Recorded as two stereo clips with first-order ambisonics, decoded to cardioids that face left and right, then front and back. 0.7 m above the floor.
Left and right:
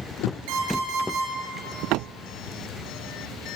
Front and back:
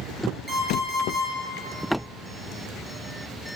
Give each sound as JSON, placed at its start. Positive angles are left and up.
{"t": 0.5, "sound": "an alarm clock", "azimuth_deg": -95, "distance_m": 7.0}